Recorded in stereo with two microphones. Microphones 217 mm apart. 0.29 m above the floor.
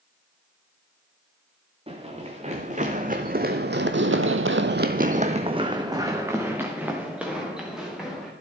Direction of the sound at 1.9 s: 25° right (ahead or behind).